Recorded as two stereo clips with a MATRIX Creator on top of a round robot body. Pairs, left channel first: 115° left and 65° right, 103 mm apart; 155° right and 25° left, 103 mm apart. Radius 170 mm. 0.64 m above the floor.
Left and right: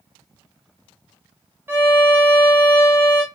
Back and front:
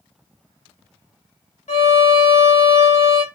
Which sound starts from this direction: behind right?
A violin, at 1.7 s.